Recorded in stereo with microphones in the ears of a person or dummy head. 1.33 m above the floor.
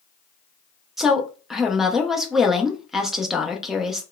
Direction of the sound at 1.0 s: 5° right (ahead or behind).